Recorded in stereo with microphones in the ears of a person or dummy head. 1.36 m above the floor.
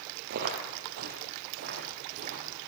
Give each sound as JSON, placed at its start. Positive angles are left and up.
{"t": 0.3, "sound": "footsteps", "side_deg": -55, "distance_m": 2.5}